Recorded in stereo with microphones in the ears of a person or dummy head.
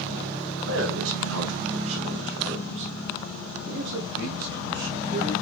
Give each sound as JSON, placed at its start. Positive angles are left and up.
{"t": 0.6, "sound": "a man speaking", "side_deg": -80, "distance_m": 3.5}